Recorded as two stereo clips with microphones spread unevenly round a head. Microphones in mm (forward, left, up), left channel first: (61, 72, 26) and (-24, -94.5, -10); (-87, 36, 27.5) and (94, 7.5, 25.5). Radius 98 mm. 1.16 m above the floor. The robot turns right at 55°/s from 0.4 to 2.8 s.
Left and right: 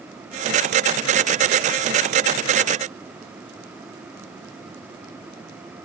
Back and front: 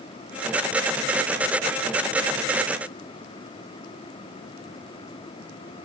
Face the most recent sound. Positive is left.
No sound to turn to.